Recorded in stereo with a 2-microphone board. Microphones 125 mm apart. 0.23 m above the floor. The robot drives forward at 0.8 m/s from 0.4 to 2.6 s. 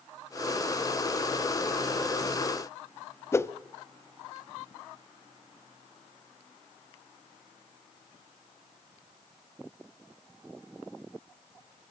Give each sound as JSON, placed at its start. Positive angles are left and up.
{"t": 3.3, "sound": "a whoosh", "side_deg": 20, "distance_m": 0.5}